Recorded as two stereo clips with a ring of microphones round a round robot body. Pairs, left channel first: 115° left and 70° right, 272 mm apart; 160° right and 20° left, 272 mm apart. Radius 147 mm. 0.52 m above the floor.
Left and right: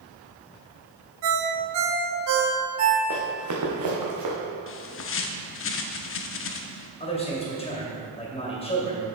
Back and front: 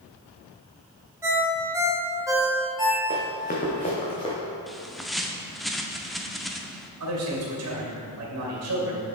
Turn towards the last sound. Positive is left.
turn(degrees=45)